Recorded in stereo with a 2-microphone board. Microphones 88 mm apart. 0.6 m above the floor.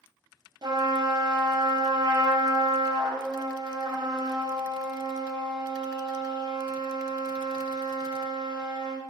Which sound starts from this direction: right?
A trumpet, at 0.6 s.